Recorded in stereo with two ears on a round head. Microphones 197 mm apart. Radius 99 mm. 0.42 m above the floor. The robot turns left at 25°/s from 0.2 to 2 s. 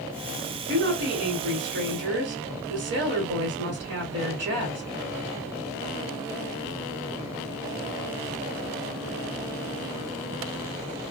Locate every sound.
0.7 s a woman speaking: 60° right, 1.9 m; by 4.8 s 95° right, 1.9 m